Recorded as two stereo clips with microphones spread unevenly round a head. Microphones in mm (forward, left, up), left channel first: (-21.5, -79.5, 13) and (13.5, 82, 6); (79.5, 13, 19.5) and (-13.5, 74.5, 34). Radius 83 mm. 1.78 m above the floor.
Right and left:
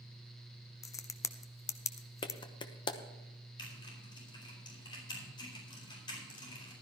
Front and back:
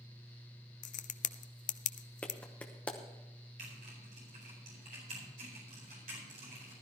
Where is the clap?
120° right, 0.8 m.